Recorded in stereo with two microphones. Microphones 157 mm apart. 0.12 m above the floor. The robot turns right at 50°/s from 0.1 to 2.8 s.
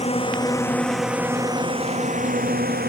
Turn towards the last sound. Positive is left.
turn(degrees=-80)